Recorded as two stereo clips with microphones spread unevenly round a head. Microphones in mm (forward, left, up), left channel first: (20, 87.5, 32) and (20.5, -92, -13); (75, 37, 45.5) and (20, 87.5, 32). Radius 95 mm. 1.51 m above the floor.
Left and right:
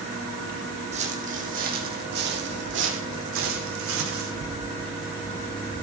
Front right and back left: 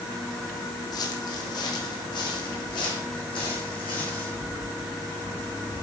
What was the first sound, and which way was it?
Footsteps, 30° right.